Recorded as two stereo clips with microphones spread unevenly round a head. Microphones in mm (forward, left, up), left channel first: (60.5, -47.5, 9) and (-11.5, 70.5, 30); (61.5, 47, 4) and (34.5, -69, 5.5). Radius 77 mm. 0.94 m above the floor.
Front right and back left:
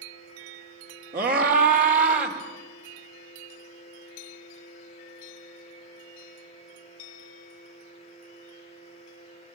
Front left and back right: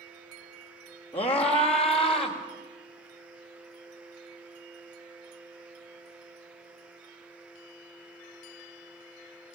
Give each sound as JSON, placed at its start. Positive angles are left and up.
{"t": 1.1, "sound": "a scream", "azimuth_deg": 155, "distance_m": 2.5}